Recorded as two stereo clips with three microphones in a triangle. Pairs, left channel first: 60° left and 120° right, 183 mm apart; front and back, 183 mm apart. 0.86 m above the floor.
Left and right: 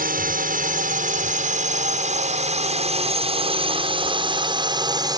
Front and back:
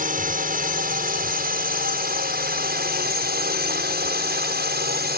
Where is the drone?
150° right; by 5.2 s 175° left.